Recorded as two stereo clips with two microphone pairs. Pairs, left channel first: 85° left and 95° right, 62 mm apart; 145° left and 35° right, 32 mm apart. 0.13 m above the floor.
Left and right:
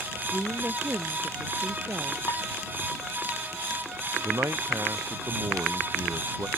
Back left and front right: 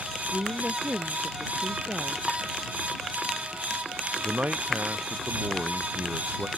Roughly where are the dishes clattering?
Ahead left.